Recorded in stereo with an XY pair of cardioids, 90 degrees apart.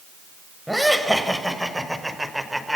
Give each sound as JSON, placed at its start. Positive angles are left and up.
{"t": 0.7, "sound": "laughter", "azimuth_deg": 0, "distance_m": 7.0}